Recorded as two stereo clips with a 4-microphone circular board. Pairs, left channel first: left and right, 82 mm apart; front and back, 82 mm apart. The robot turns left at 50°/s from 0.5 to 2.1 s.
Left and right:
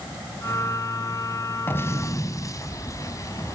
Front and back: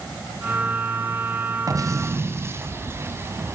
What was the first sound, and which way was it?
An explosion, 150° left.